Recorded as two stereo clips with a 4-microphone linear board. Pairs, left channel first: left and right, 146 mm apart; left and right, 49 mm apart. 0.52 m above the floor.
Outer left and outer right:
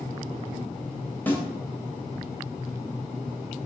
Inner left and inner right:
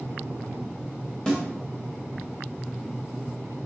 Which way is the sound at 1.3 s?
15° left (ahead or behind).